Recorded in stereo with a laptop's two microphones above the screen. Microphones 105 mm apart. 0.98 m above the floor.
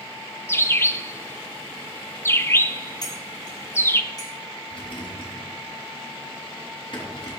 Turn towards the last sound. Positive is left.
turn(degrees=55)  # may be behind; listen again after turning